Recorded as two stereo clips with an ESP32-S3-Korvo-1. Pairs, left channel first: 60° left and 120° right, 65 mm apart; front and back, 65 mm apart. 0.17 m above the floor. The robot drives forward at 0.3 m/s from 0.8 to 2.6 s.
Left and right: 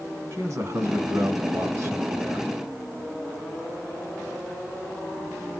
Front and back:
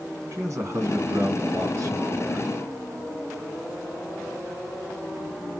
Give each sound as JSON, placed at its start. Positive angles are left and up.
{"t": 0.3, "sound": "a man speaking", "azimuth_deg": -150, "distance_m": 2.0}